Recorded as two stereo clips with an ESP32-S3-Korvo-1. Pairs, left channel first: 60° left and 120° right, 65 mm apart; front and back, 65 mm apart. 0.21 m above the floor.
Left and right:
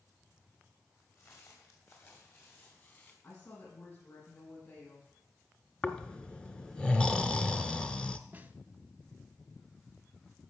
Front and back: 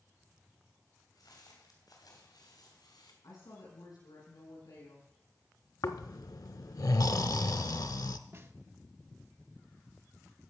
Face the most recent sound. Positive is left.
turn(degrees=-170)